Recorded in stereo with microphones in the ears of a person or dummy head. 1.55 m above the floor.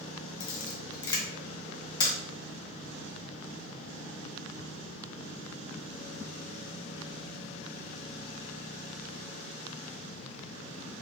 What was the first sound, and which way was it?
A camera shutter, 20° left (ahead or behind).